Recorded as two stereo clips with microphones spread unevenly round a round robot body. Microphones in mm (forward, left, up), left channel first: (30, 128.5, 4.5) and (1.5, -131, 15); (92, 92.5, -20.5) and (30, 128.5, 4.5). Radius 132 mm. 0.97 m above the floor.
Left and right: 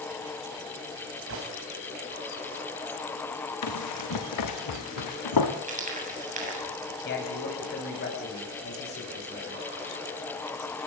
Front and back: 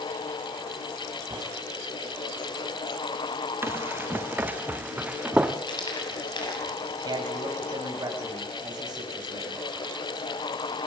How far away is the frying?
About 8 m.